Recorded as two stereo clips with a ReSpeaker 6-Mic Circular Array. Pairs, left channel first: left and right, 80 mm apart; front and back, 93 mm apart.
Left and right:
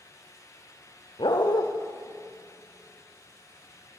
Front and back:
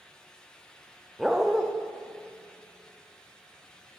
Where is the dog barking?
95° left, 4 m.